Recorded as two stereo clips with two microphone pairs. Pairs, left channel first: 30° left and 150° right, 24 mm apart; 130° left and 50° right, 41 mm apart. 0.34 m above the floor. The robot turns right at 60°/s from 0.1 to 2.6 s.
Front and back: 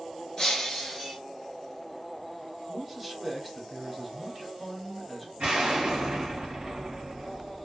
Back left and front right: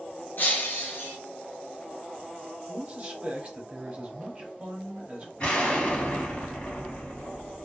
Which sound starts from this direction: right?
A man speaking, at 2.7 s.